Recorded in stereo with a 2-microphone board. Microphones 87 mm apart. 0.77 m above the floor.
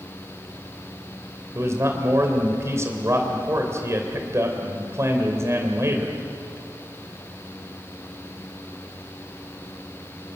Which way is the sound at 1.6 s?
35° right (ahead or behind).